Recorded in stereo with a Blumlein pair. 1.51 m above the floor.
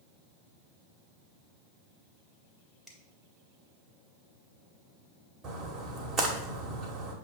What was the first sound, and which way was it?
A finger snap, straight ahead.